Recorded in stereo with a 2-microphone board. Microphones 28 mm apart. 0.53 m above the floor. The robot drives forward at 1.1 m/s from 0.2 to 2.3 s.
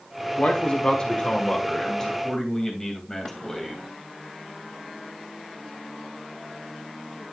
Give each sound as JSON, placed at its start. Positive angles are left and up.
{"t": 0.4, "sound": "a man speaking", "side_deg": 45, "distance_m": 1.1}